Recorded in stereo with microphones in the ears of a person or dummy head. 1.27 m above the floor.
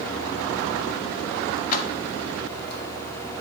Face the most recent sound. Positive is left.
turn(degrees=50)  # may be behind; listen again after turning